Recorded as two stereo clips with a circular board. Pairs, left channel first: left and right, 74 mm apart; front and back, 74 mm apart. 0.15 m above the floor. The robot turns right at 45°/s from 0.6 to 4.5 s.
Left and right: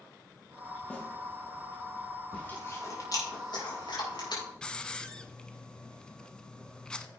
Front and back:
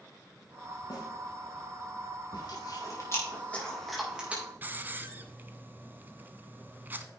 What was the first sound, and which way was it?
A snare drum, 15° left.